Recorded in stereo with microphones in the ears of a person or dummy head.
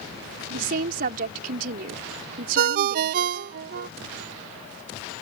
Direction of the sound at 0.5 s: 55° right (ahead or behind).